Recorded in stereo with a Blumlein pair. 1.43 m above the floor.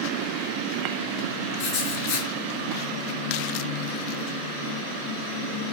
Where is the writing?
45° left, 1.1 m.